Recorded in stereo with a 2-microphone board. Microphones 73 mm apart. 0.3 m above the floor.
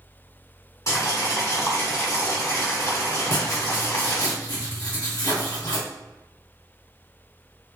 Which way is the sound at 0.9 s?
45° left (ahead or behind).